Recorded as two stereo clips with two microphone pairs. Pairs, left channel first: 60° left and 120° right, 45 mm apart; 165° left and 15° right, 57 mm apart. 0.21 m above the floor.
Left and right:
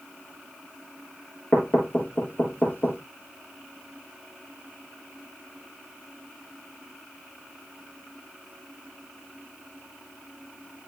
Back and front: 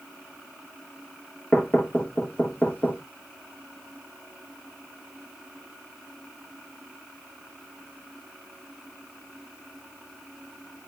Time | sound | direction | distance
1.5 | knocking | 105° left | 3 m